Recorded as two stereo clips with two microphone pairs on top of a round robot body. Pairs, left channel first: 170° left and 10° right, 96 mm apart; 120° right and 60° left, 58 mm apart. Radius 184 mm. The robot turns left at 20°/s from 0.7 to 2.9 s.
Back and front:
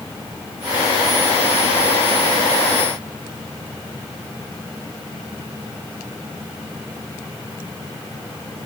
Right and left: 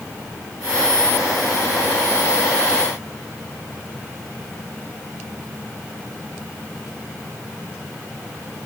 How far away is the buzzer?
I don't hear a buzzer.